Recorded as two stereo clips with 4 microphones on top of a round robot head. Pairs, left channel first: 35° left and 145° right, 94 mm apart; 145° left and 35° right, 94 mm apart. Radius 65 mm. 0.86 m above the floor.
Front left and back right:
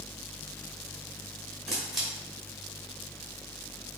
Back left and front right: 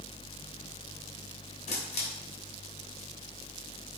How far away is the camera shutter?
About 2.5 m.